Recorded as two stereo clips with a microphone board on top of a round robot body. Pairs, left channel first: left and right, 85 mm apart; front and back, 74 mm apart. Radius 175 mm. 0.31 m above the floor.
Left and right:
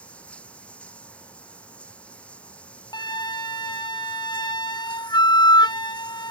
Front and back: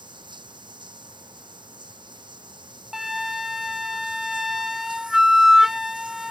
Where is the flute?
95° left.